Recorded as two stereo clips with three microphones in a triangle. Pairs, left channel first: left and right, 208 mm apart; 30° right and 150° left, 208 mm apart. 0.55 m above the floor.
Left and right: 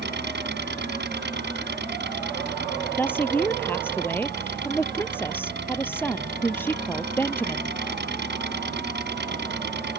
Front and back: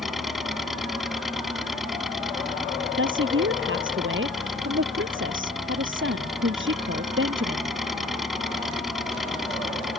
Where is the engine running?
120° right.